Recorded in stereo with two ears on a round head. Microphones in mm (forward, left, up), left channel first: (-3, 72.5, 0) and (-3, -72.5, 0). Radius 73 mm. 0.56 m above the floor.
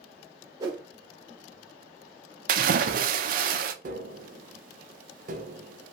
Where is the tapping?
50° right (ahead or behind), 0.5 m.